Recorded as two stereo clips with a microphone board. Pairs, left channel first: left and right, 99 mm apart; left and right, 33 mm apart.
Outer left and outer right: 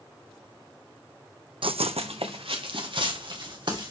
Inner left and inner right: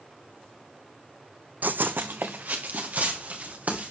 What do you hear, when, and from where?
1.6 s running footsteps: 60° right (ahead or behind), 0.6 m; by 3.9 s 55° right (ahead or behind), 3.5 m